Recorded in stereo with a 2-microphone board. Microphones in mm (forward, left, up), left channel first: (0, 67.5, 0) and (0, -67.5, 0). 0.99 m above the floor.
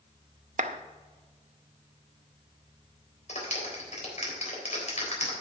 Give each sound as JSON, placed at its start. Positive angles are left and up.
{"t": 0.6, "sound": "a clap", "side_deg": -70, "distance_m": 0.7}
{"t": 3.3, "sound": "a clap", "side_deg": 65, "distance_m": 3.5}